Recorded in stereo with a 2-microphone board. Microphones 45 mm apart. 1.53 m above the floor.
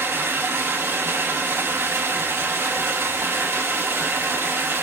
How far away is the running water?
About 5.5 m.